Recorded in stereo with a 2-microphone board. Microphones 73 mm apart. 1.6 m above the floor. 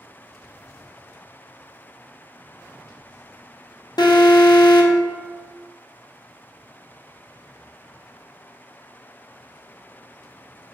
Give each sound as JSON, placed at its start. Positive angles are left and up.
{"t": 4.0, "sound": "an alarm", "side_deg": 75, "distance_m": 0.6}